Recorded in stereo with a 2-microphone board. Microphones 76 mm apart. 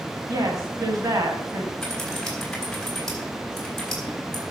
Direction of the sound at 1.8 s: 5° left (ahead or behind).